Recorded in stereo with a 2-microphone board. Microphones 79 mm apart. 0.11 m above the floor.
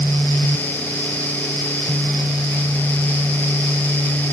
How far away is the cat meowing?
I don't hear a cat meowing.